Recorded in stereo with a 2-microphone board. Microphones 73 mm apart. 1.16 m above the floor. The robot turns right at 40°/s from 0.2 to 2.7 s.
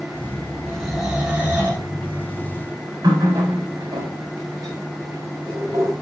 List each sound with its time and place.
0.7 s snoring: 170° left, 5 m; by 1.9 s 140° right, 5 m
3.0 s a running tap: 65° right (ahead or behind), 3.5 m